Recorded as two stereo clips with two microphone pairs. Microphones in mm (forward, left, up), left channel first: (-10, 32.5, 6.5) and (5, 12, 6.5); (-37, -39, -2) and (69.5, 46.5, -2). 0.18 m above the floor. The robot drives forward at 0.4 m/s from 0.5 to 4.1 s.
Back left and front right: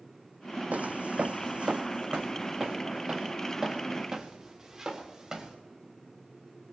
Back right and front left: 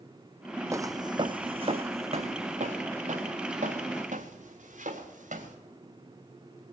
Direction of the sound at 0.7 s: 30° right.